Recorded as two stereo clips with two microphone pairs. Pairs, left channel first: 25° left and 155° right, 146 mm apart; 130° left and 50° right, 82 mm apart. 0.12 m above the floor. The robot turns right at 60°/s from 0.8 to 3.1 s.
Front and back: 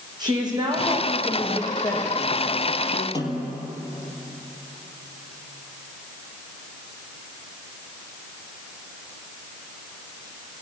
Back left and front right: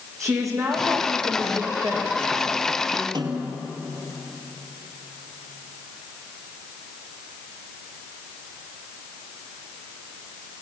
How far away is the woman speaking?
About 6.5 m.